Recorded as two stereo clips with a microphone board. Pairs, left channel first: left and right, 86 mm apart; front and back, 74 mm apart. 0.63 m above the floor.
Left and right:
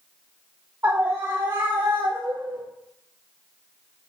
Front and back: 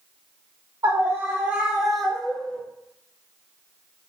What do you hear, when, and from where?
0.8 s a scream: 155° right, 1.1 m; by 2.6 s 75° right, 1.6 m